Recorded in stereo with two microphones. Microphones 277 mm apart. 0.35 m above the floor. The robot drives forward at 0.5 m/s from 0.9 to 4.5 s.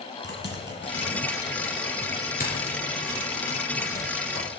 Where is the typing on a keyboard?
40° left (ahead or behind), 2.5 m; by 4.5 s 20° left (ahead or behind), 4 m.